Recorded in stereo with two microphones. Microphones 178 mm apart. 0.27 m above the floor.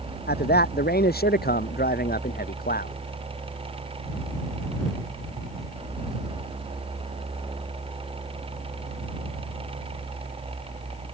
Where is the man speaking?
65° left (ahead or behind); by 3.0 s 55° left (ahead or behind).